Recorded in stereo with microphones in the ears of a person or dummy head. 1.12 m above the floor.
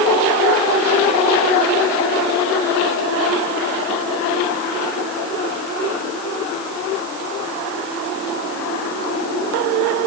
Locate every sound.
Only background noise.